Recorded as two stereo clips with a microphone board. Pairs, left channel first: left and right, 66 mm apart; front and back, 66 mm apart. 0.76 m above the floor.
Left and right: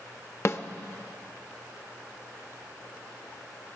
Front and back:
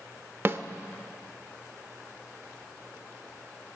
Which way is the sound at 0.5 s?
130° left.